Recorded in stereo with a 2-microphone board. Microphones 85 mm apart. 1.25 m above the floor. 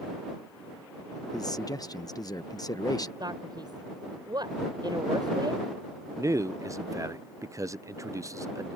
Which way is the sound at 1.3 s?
45° left (ahead or behind).